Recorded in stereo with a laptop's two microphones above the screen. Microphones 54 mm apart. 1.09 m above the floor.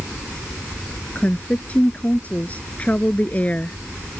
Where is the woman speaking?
25° left (ahead or behind).